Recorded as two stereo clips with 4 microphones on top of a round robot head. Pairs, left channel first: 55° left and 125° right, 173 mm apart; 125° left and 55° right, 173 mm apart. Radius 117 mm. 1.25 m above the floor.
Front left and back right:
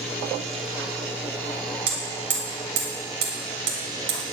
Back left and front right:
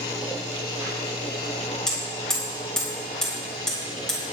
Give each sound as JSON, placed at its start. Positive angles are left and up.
{"t": 1.9, "sound": "hammering", "azimuth_deg": -150, "distance_m": 4.0}